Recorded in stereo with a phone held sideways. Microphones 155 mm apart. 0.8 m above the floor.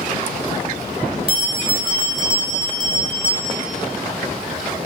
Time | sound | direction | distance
1.3 | a bell | 35° right (ahead or behind) | 3.5 m